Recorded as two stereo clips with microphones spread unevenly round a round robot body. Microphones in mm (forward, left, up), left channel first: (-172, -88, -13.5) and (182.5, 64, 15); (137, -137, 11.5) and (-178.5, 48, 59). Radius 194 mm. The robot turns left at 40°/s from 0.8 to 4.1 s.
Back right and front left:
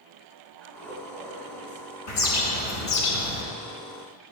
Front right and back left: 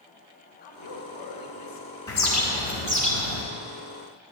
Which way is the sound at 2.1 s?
115° right.